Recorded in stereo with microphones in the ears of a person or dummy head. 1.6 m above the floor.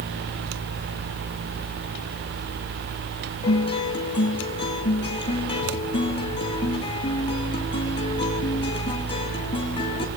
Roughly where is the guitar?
Left.